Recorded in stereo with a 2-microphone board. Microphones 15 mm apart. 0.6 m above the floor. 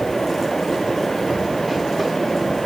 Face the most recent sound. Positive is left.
No sound to turn to.